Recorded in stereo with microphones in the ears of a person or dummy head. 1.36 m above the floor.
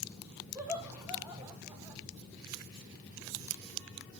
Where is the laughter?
10° right (ahead or behind), 1.5 m.